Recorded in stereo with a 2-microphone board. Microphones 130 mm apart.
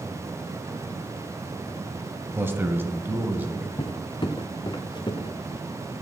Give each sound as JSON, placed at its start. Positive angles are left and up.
{"t": 2.4, "sound": "a man speaking", "side_deg": -15, "distance_m": 1.3}
{"t": 3.8, "sound": "footsteps", "side_deg": 35, "distance_m": 1.1}